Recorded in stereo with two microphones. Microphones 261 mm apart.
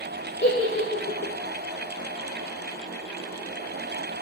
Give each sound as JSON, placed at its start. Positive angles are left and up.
{"t": 0.4, "sound": "a giggle", "side_deg": 45, "distance_m": 0.6}